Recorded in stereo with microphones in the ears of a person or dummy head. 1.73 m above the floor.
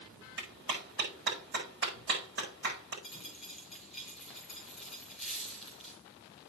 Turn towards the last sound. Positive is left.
turn(degrees=0)  # may be behind; listen again after turning